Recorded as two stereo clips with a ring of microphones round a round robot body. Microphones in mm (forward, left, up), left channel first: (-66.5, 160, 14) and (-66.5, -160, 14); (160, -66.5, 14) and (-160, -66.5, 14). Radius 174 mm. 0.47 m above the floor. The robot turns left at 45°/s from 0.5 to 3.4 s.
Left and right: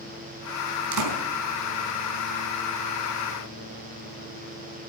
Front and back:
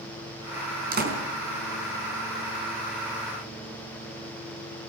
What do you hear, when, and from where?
0.9 s a door slam: 115° right, 4.5 m; by 1.2 s 130° right, 4.5 m